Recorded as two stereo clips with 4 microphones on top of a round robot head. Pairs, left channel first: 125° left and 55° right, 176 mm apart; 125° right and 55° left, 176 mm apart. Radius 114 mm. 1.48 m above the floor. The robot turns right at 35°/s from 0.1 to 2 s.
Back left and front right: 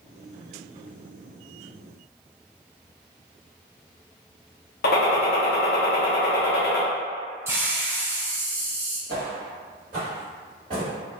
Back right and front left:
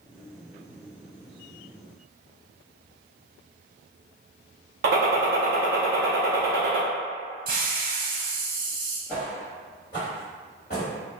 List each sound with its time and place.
4.8 s a gunshot: 90° left, 0.7 m
7.5 s a hiss: 20° left, 0.8 m
9.1 s footsteps: 50° right, 1.8 m; by 10.9 s 105° right, 1.7 m